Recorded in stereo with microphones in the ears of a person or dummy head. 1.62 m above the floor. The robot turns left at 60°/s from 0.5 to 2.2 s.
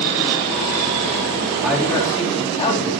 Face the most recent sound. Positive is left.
turn(degrees=150)